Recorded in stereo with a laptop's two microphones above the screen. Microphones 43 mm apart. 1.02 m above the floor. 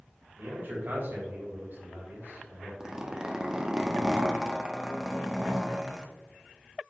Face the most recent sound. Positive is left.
turn(degrees=-20)  # may be behind; listen again after turning